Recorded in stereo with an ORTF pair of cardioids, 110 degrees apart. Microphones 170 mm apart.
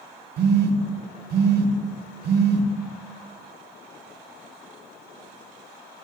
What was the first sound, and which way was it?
A phone buzzing, 65° right.